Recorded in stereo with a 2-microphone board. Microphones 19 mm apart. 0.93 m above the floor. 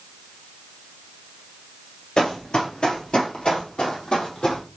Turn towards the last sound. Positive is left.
turn(degrees=60)  # may be behind; listen again after turning